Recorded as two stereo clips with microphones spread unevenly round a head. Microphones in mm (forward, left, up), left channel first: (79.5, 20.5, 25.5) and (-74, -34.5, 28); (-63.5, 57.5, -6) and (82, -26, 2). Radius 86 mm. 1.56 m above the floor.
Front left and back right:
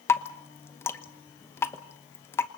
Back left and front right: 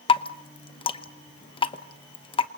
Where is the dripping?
95° left, 1.0 m.